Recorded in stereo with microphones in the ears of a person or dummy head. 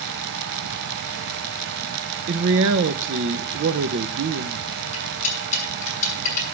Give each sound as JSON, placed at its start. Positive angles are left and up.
{"t": 2.3, "sound": "a man speaking", "side_deg": -65, "distance_m": 1.0}
{"t": 4.9, "sound": "cutlery clinking", "side_deg": 40, "distance_m": 7.0}